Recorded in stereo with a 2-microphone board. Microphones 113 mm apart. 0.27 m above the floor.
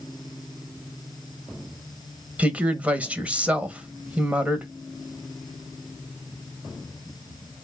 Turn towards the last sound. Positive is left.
turn(degrees=-10)  # may be behind; listen again after turning